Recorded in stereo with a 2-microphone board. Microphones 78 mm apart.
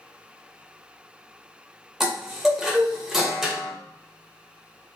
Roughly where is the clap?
No clap in this recording.